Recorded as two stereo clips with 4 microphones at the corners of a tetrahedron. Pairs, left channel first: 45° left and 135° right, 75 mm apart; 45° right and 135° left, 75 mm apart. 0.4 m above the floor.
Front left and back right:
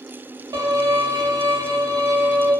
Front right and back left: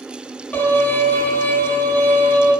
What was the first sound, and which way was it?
A violin, 115° right.